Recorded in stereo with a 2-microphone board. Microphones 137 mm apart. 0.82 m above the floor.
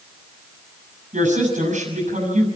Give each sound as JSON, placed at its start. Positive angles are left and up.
{"t": 1.1, "sound": "a woman speaking", "side_deg": -60, "distance_m": 7.0}